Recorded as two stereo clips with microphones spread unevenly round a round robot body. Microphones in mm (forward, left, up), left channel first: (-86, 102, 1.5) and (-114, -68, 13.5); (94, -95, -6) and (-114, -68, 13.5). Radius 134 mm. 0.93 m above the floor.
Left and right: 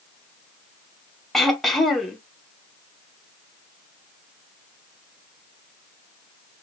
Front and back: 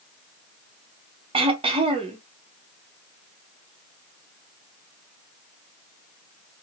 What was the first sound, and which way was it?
Throat clearing, 155° left.